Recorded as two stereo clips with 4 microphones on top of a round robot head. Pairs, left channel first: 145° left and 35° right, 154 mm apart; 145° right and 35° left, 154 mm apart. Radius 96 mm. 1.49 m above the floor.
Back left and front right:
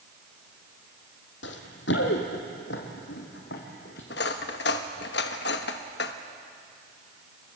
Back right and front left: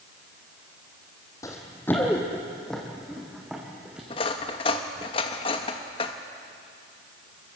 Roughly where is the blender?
No blender in this recording.